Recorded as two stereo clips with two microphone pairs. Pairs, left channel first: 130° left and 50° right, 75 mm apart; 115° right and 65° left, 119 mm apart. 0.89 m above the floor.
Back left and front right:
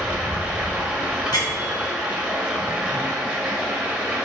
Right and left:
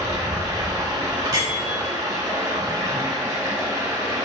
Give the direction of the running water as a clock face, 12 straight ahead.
11 o'clock.